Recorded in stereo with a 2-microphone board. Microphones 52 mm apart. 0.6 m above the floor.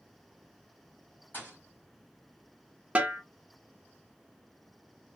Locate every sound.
1.3 s a thud: 40° left (ahead or behind), 1.6 m
3.0 s a snare drum: 25° right (ahead or behind), 0.6 m